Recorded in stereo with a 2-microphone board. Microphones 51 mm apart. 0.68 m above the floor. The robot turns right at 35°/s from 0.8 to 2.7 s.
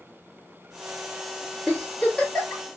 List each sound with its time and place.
1.7 s a giggle: 15° left (ahead or behind), 1.4 m; by 2.6 s 35° left (ahead or behind), 1.4 m